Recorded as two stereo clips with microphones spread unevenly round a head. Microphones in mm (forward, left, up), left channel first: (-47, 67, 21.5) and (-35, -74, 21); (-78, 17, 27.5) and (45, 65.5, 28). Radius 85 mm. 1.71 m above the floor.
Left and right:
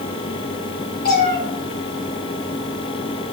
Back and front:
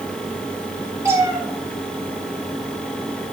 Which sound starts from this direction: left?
A cat meowing, at 1.1 s.